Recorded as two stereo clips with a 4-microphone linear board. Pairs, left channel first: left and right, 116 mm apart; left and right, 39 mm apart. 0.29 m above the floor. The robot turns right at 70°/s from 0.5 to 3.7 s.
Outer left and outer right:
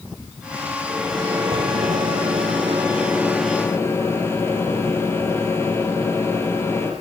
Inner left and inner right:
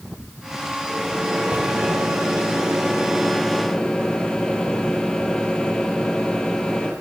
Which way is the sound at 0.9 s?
175° right.